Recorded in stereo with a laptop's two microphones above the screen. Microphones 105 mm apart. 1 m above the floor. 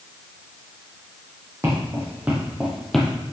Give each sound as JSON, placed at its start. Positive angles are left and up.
{"t": 1.6, "sound": "footsteps", "side_deg": -25, "distance_m": 2.5}